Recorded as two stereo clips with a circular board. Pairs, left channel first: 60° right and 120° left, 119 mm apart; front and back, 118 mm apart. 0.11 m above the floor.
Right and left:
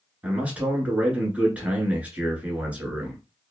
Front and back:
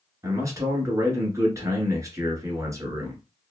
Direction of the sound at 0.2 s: 175° right.